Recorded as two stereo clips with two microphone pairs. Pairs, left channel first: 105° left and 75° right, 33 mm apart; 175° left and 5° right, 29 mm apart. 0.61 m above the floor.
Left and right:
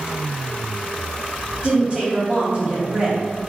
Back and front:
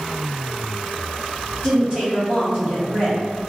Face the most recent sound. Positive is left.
turn(degrees=-40)